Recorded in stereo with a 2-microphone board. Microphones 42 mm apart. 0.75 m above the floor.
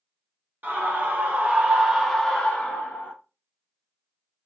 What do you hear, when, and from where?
0.6 s a scream: 50° right (ahead or behind), 1.1 m; by 3.1 s 45° left (ahead or behind), 0.8 m